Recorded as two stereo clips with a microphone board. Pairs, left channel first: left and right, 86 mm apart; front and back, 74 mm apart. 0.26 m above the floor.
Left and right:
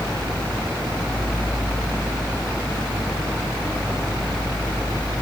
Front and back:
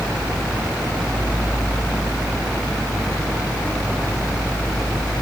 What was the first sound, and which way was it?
Only background noise.